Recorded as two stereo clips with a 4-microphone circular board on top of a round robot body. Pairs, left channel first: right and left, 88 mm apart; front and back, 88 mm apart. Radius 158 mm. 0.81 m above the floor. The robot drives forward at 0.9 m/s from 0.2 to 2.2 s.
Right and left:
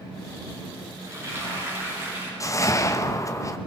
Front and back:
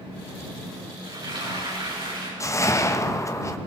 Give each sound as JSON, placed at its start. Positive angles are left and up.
{"t": 1.0, "sound": "frying", "azimuth_deg": 145, "distance_m": 7.5}
{"t": 2.4, "sound": "a whoosh", "azimuth_deg": -45, "distance_m": 1.5}